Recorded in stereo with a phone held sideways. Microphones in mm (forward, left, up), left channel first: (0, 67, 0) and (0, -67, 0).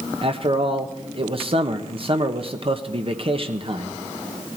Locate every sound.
0.2 s a man speaking: 45° right (ahead or behind), 1.4 m